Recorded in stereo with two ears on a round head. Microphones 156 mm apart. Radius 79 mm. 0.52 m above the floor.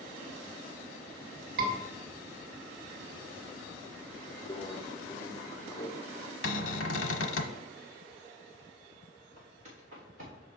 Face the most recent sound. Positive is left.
turn(degrees=-50)  # may be behind; listen again after turning